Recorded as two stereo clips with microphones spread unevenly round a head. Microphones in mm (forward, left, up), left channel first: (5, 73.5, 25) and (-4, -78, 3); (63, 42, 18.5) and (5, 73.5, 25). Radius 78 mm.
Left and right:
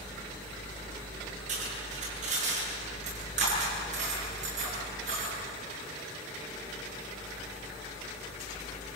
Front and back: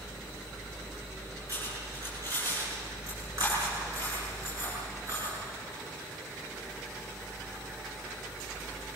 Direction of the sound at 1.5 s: 140° right.